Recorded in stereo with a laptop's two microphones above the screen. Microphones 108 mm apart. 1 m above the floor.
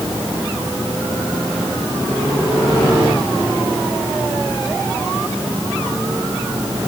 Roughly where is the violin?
No violin in this recording.